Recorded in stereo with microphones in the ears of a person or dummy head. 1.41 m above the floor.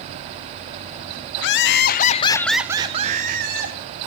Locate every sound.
1.4 s laughter: 65° left (ahead or behind), 1.4 m; by 3.8 s 65° right (ahead or behind), 1.6 m